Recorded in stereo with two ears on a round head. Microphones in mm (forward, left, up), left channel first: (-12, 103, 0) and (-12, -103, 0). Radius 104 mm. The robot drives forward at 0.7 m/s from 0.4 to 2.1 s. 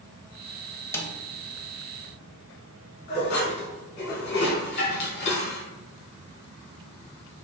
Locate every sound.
0.9 s a snare drum: 10° left (ahead or behind), 0.6 m
3.1 s dishes clattering: 50° left (ahead or behind), 2.0 m